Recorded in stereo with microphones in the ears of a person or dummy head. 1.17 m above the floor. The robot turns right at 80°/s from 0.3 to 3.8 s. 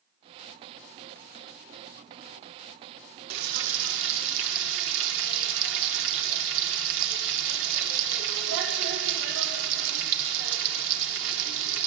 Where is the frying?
120° right, 1.6 m; by 11.9 s 80° right, 1.6 m.